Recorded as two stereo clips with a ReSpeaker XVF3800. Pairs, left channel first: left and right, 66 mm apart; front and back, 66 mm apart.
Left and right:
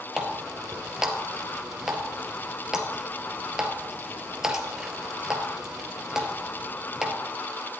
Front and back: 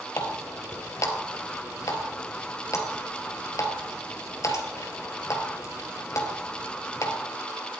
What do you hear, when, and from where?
0.2 s a running tap: 10° right, 1.6 m